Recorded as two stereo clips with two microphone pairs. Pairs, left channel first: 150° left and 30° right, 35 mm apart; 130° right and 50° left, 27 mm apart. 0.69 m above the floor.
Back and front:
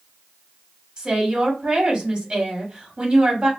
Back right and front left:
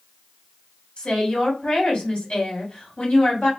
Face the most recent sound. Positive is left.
turn(degrees=-85)